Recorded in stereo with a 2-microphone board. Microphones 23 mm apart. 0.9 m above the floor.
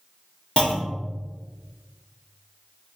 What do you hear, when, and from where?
0.6 s a clunk: 40° left (ahead or behind), 1.4 m